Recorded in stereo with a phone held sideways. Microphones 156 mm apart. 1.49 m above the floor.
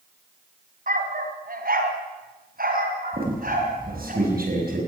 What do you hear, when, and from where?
0.9 s a dog barking: 65° right (ahead or behind), 3 m; by 4.1 s 60° right (ahead or behind), 4.5 m
3.1 s a squeak: 70° right (ahead or behind), 5 m